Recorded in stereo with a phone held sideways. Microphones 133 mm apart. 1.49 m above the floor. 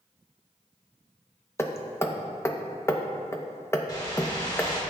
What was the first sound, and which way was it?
Hammering, 20° left (ahead or behind).